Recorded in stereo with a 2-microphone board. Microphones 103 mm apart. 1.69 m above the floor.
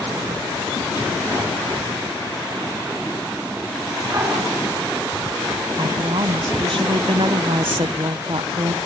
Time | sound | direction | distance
4.1 | a dog barking | 30° right (ahead or behind) | 6.5 m
5.8 | a woman speaking | 60° right (ahead or behind) | 1.0 m